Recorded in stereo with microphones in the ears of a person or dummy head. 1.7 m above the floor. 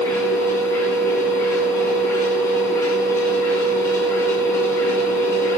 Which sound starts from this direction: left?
A machine running, at 0.0 s.